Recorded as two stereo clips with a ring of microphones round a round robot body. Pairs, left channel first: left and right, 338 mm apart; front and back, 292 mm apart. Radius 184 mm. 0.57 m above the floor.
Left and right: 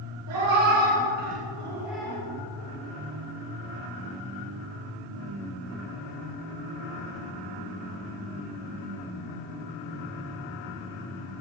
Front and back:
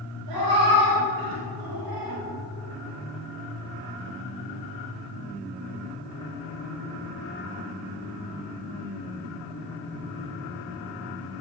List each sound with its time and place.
0.3 s a cat meowing: 135° right, 2.5 m; by 2.2 s 170° left, 1.6 m